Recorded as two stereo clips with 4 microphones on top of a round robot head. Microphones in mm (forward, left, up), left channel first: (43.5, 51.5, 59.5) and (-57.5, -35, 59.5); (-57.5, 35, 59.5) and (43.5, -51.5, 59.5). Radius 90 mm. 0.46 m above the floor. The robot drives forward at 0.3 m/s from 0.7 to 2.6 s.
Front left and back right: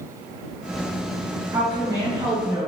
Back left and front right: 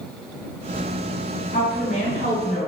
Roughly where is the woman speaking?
Behind.